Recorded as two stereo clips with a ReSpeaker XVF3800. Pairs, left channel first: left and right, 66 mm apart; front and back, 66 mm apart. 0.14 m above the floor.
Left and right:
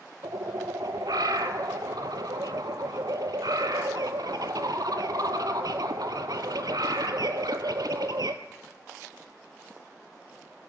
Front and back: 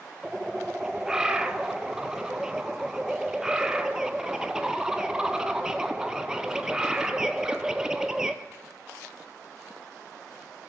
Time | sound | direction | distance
0.2 | a bird | 100° right | 0.6 m